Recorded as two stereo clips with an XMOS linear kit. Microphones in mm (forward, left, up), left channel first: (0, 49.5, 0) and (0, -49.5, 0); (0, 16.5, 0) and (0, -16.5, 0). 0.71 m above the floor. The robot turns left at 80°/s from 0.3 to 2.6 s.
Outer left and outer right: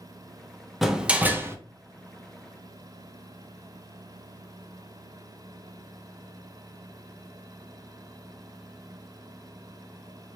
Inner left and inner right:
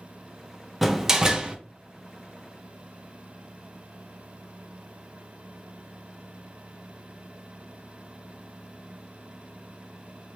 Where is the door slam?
Centre (ahead or behind), 0.5 m; by 1.6 s 25° right (ahead or behind), 0.5 m.